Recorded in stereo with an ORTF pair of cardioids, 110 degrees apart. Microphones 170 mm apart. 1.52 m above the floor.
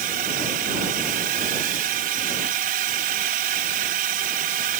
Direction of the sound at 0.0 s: 65° right.